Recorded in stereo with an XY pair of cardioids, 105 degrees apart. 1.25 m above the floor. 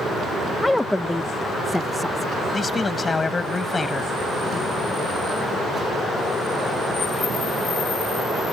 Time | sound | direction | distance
0.6 | a woman speaking | 15° left | ?
2.5 | a man speaking | 30° left | ?